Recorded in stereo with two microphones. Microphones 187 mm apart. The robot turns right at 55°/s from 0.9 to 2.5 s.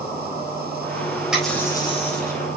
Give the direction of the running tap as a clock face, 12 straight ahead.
12 o'clock.